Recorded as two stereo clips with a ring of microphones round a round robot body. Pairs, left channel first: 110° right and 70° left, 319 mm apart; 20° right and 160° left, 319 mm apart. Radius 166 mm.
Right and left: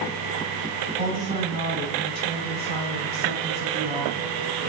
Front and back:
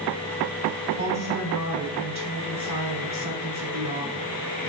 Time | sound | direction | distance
1.0 | a woman speaking | 130° right | 2.5 m